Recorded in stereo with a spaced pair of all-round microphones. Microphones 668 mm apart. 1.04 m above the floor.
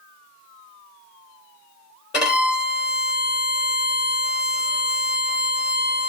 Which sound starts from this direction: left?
A violin, at 2.1 s.